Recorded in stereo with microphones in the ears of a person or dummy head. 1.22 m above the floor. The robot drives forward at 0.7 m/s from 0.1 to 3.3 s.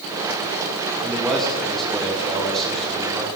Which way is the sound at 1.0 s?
Centre (ahead or behind).